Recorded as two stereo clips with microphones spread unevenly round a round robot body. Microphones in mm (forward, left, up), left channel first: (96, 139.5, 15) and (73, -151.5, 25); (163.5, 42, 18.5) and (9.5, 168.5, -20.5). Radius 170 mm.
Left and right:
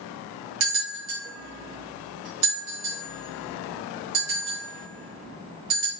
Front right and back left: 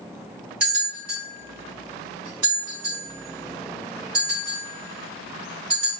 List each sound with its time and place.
0.6 s a bell: 135° right, 1.9 m